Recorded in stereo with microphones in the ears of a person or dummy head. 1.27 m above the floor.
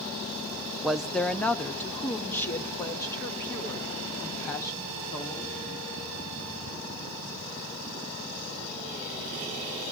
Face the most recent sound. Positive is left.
turn(degrees=15)  # may be behind; listen again after turning